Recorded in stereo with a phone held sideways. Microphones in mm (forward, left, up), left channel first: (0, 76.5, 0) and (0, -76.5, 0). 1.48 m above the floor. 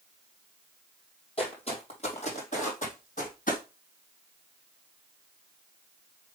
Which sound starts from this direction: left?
Footsteps, at 1.4 s.